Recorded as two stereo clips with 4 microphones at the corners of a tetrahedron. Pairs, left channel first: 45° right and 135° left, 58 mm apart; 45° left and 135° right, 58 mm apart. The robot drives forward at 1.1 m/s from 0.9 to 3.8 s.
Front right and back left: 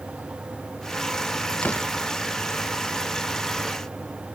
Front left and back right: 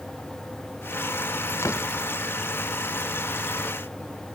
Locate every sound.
1.6 s a door slam: 15° left